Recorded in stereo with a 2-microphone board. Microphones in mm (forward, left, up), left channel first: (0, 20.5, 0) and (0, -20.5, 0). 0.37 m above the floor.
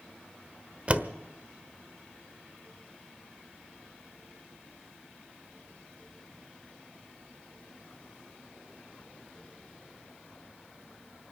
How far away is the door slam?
About 1.0 m.